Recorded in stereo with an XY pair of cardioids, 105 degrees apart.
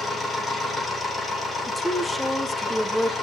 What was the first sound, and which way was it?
A machine running, 35° left.